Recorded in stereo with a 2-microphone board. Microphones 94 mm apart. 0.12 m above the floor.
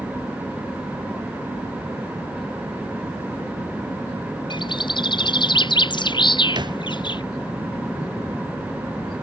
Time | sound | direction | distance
4.5 | a bird | 55° left (ahead or behind) | ?
6.5 | a thud | 55° right (ahead or behind) | ?